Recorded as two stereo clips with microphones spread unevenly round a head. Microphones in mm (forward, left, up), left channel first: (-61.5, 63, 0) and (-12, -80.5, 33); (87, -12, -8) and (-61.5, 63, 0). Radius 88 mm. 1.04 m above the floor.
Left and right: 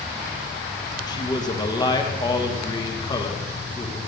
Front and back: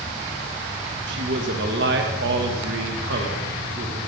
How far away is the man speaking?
About 1.5 m.